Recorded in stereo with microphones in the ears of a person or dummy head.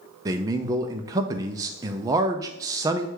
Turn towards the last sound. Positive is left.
turn(degrees=-20)  # may be behind; listen again after turning